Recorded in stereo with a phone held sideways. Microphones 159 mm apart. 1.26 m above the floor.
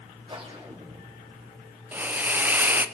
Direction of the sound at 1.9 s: 10° right (ahead or behind).